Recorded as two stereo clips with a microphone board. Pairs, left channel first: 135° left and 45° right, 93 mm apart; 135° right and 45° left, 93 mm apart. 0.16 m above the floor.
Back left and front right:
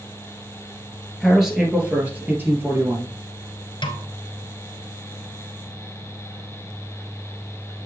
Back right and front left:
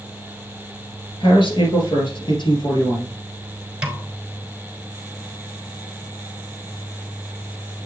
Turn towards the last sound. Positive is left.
turn(degrees=125)